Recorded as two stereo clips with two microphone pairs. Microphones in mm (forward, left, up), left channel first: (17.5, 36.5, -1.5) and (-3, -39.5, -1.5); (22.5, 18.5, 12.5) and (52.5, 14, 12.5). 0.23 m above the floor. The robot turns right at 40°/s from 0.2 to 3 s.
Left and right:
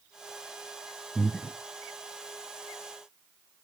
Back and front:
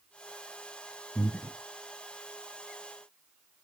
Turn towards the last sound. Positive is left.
turn(degrees=-125)